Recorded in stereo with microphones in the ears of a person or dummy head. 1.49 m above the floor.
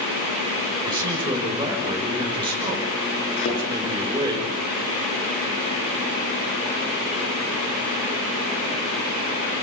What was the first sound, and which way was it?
A man speaking, 25° right (ahead or behind).